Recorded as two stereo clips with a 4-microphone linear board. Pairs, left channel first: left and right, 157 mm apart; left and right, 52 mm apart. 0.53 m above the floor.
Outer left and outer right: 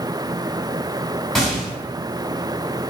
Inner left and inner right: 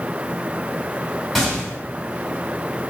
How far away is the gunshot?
About 1.5 m.